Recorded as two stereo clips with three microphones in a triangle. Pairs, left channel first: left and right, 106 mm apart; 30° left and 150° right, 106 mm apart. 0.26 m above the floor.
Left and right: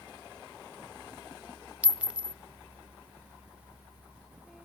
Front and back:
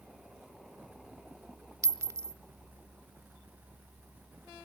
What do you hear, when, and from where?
1.8 s a clink: 150° right, 0.5 m